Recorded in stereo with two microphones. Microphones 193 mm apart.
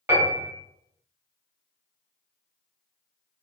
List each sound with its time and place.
0.1 s a piano: 10° right (ahead or behind), 1.4 m